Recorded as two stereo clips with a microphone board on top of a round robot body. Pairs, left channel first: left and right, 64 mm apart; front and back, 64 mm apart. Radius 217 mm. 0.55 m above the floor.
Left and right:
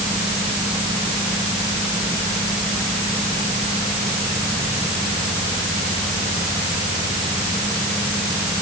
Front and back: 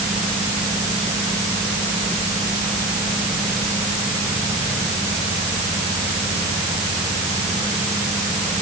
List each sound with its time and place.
Only background noise.